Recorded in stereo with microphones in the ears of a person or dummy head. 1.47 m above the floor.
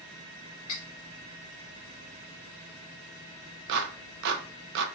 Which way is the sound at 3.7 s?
70° right (ahead or behind).